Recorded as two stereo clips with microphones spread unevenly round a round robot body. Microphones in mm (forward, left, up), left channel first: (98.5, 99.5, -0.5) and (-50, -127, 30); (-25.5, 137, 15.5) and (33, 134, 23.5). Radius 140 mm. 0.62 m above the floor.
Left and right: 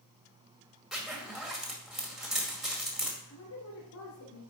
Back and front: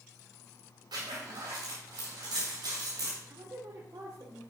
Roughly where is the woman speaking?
Ahead left.